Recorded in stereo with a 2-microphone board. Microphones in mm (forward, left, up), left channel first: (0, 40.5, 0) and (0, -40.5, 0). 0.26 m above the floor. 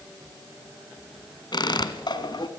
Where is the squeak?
65° left (ahead or behind), 1.4 m.